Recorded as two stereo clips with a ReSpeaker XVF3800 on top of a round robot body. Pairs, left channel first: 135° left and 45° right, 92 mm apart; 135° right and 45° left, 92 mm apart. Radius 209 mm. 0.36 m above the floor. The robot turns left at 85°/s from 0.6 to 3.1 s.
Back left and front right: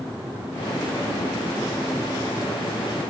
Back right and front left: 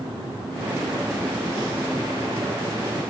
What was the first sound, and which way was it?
Only background noise.